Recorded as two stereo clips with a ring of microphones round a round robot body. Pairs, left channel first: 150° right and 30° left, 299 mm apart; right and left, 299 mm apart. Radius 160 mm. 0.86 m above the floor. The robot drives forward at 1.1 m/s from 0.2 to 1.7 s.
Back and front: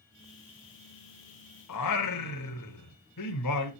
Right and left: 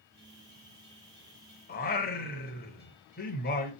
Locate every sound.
1.7 s singing: 145° right, 0.8 m